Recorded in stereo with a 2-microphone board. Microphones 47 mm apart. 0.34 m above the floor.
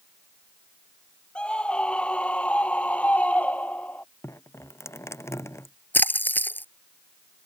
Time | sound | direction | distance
1.4 | a scream | 20° left (ahead or behind) | ?
4.2 | dripping | 75° left (ahead or behind) | ?
5.9 | a splash | 40° left (ahead or behind) | ?